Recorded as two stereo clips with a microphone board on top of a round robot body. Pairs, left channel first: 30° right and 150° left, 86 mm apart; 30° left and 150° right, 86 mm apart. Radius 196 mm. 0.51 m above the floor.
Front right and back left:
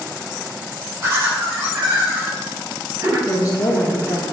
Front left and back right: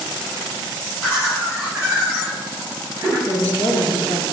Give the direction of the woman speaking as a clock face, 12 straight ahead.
1 o'clock.